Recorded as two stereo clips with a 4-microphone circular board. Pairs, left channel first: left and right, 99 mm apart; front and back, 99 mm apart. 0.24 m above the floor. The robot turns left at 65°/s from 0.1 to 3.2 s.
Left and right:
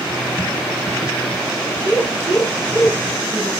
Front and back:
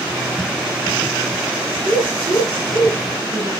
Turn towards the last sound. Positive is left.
turn(degrees=-5)